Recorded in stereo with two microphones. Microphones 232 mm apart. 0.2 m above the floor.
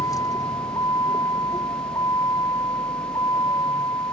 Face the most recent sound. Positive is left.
turn(degrees=15)  # may be behind; listen again after turning